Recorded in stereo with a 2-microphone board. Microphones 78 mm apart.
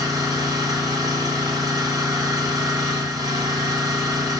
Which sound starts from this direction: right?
An engine running, at 0.0 s.